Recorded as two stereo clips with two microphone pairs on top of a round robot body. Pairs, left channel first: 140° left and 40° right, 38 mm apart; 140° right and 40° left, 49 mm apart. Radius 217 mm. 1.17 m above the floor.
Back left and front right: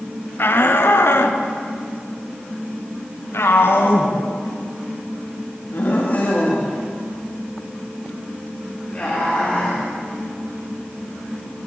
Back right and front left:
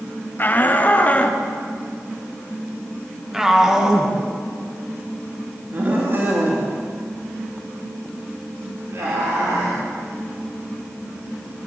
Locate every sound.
0.4 s a shout: 165° left, 3 m; by 9.8 s 70° left, 6 m